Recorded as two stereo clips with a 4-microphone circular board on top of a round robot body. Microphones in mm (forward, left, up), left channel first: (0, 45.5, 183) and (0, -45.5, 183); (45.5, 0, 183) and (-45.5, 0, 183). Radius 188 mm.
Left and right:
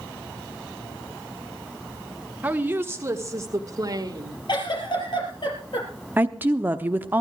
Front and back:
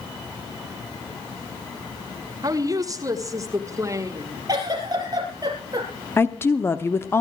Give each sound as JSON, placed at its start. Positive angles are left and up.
{"t": 2.4, "sound": "a woman speaking", "azimuth_deg": -155, "distance_m": 1.8}
{"t": 4.5, "sound": "a giggle", "azimuth_deg": 130, "distance_m": 4.0}
{"t": 6.2, "sound": "a woman speaking", "azimuth_deg": -40, "distance_m": 1.3}